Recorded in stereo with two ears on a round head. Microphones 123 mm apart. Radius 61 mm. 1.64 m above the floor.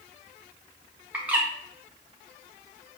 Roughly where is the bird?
Centre.